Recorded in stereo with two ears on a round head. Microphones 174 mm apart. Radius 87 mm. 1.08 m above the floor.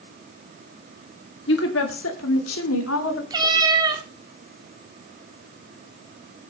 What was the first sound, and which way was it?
A woman speaking, 65° left (ahead or behind).